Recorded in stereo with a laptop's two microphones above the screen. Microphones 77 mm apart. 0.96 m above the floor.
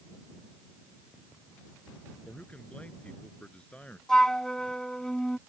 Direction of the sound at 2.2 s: 15° left (ahead or behind).